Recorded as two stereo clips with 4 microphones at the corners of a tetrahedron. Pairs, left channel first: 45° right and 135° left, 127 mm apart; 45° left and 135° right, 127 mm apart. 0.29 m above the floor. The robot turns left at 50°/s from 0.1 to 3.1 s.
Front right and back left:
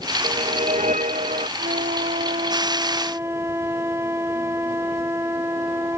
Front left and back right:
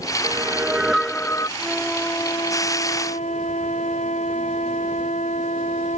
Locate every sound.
0.2 s a whoosh: 170° left; by 1.5 s 105° left
1.6 s a flute: 140° left; by 6.0 s 65° left